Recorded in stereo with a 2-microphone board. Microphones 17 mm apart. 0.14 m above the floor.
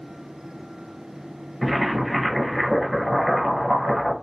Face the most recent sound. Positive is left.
turn(degrees=5)  # may be behind; listen again after turning